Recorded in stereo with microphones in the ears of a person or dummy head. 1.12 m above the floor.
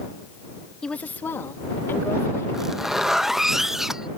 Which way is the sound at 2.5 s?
Centre (ahead or behind).